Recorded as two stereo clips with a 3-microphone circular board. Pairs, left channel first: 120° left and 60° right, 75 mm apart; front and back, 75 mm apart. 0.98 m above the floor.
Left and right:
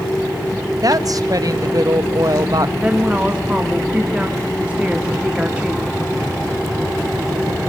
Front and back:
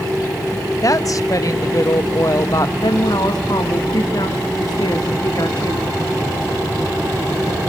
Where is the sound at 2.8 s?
15° left, 2.5 m.